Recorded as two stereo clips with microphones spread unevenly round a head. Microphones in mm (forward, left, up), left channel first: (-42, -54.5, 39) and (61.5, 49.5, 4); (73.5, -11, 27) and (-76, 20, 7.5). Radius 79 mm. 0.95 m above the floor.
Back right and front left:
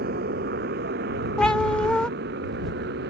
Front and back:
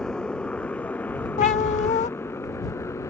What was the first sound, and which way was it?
A motorcycle, 75° left.